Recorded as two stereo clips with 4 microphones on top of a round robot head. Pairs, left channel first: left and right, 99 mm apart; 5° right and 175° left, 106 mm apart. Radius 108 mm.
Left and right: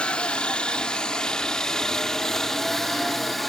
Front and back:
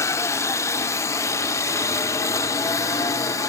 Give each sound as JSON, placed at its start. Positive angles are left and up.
{"t": 0.0, "sound": "a helicopter", "azimuth_deg": 20}